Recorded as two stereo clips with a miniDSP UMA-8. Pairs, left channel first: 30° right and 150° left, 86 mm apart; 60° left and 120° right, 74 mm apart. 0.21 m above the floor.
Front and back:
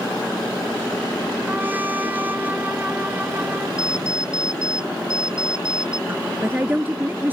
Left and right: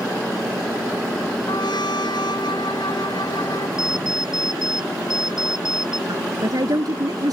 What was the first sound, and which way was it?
A trumpet, 80° left.